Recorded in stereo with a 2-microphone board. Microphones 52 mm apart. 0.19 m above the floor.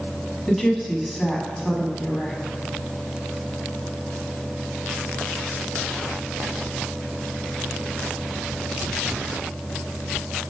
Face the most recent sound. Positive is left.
turn(degrees=5)  # may be behind; listen again after turning